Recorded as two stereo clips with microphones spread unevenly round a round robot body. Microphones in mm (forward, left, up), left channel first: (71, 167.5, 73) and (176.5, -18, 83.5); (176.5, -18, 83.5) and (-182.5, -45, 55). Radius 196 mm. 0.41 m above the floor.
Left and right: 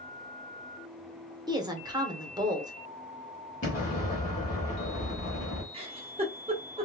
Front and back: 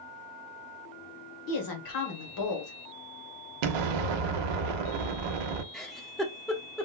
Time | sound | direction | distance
1.5 | a woman speaking | 10° left | 1.2 m
3.6 | an explosion | straight behind | 0.6 m
5.7 | a giggle | 95° right | 0.8 m